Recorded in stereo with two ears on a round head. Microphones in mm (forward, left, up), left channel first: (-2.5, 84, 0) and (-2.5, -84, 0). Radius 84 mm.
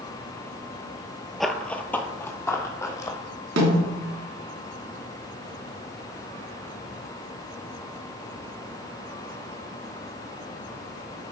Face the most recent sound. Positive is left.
turn(degrees=-75)  # may be behind; listen again after turning